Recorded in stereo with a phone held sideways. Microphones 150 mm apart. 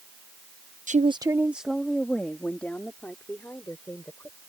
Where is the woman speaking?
55° right (ahead or behind); by 4.4 s 15° left (ahead or behind).